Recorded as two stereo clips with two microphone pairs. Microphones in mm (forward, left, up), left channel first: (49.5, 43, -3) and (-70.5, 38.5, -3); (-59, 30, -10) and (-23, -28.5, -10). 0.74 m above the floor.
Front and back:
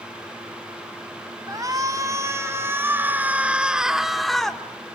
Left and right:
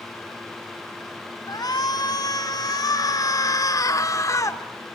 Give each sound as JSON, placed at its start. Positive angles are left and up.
{"t": 1.5, "sound": "a shout", "azimuth_deg": 125, "distance_m": 3.5}